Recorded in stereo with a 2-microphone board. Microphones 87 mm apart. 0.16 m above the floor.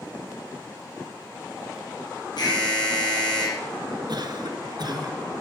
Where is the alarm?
55° left (ahead or behind), 6 m.